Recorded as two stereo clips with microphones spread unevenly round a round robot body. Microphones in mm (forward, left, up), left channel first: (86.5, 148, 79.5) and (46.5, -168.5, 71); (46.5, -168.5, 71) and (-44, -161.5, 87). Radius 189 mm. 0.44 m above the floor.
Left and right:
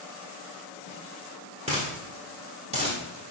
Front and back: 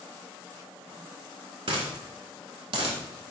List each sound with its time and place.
1.7 s a dropped coin: 170° right, 0.8 m